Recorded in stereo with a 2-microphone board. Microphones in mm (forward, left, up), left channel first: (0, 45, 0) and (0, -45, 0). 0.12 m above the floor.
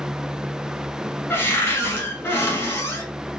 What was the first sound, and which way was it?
A cupboard door, 25° left (ahead or behind).